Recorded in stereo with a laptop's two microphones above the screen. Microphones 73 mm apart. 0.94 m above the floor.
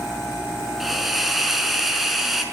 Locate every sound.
0.8 s a hiss: 5° right (ahead or behind), 5.5 m